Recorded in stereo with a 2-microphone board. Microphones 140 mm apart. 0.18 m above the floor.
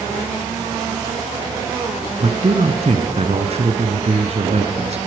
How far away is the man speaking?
About 1.5 m.